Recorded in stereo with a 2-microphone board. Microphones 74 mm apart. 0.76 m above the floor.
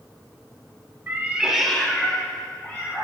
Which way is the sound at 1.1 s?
30° right (ahead or behind).